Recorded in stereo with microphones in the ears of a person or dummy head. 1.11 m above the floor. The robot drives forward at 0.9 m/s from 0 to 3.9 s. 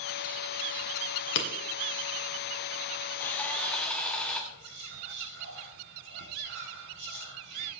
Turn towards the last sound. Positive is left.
turn(degrees=-60)  # may be behind; listen again after turning